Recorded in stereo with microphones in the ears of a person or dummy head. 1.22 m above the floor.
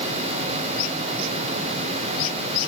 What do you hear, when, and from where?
Only background noise.